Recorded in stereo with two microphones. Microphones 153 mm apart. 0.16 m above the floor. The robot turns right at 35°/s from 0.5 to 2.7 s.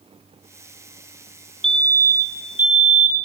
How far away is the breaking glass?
I don't hear breaking glass.